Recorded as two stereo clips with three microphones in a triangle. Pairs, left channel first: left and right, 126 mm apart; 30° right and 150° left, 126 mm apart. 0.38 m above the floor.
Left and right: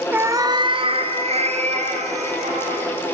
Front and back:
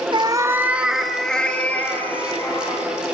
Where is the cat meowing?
165° right, 1.1 m; by 2.9 s 100° right, 4 m.